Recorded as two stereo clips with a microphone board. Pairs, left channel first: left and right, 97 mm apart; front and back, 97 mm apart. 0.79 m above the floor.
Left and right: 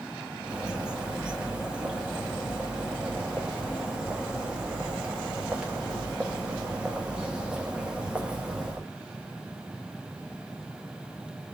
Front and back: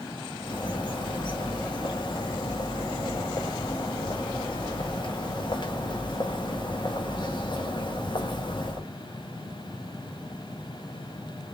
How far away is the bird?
About 1.2 m.